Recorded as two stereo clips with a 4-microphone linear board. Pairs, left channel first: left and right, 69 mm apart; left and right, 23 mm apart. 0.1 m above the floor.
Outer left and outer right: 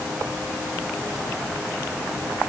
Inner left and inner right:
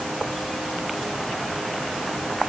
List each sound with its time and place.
Only background noise.